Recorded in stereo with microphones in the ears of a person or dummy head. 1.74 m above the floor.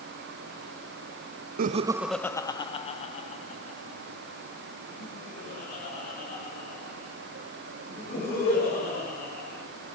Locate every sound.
1.6 s laughter: 45° right (ahead or behind), 0.5 m; by 9.6 s 60° left (ahead or behind), 7.5 m